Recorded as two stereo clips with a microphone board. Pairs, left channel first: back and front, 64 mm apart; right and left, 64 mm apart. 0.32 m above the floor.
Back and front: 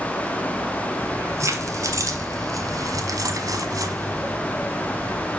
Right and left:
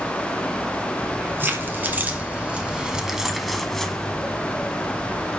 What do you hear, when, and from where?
1.0 s keys jangling: 40° left, 2 m; by 5.3 s 30° right, 1.8 m